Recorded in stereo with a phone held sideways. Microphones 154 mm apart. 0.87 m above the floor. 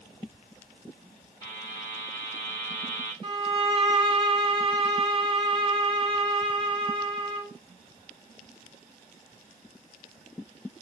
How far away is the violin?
About 0.8 m.